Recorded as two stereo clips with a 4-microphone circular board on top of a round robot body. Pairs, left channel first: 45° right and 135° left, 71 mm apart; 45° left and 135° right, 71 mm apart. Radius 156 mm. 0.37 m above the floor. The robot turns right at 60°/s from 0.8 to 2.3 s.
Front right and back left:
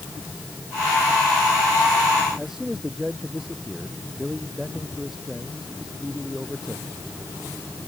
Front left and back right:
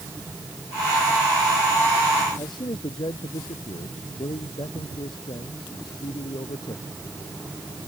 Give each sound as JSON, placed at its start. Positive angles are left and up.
{"t": 2.4, "sound": "a man speaking", "azimuth_deg": 50}